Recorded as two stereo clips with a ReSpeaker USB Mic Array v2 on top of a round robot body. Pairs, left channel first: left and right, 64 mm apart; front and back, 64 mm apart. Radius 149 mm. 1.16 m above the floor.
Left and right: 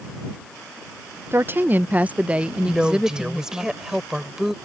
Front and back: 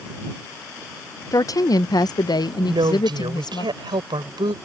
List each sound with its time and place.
1.3 s a woman speaking: 35° right; by 3.7 s 5° right
2.7 s a woman speaking: 170° right